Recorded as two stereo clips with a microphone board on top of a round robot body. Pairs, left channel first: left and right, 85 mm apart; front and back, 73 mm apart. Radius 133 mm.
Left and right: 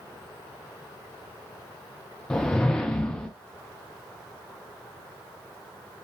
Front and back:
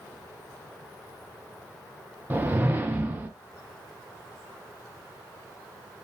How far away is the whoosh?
About 0.5 m.